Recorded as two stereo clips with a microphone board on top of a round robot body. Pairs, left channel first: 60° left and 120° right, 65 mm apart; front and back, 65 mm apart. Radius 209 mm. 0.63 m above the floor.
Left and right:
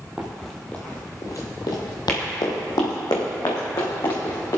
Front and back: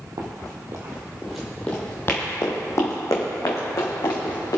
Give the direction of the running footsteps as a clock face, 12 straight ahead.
7 o'clock.